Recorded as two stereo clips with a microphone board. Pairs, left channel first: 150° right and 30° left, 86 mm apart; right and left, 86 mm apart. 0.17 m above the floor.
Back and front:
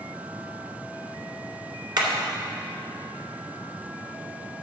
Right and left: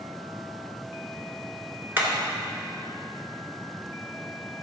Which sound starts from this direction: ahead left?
Hammering, at 2.0 s.